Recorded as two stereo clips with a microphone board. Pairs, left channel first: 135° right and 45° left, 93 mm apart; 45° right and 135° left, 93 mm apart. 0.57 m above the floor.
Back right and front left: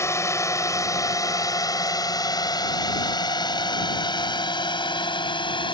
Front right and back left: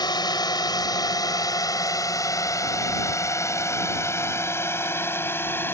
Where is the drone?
80° right; by 5.8 s 110° right.